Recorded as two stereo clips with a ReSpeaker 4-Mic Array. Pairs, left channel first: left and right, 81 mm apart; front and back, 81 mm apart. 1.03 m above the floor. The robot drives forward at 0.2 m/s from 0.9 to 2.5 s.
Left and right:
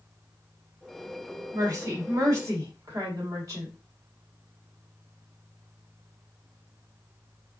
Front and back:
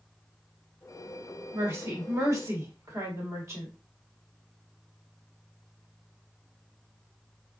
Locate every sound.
1.5 s a woman speaking: 125° right, 1.3 m; by 3.7 s 135° right, 1.4 m